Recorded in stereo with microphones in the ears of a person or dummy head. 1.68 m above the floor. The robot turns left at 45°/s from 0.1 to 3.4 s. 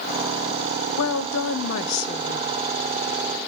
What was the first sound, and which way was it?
A woman speaking, 105° left.